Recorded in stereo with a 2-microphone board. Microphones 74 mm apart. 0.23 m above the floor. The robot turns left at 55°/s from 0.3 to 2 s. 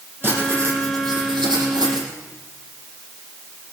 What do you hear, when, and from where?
0.2 s writing: 30° right, 6 m; by 2.1 s 125° right, 6 m